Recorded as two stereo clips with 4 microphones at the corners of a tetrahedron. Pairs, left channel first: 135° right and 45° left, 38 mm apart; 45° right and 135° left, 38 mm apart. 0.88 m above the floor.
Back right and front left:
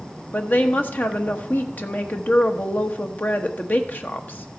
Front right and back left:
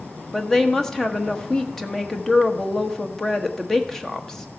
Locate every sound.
0.3 s a woman speaking: 120° right, 1.2 m